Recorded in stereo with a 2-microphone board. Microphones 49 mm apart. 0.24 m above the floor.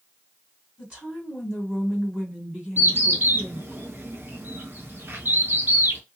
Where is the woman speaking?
15° right (ahead or behind), 2 m.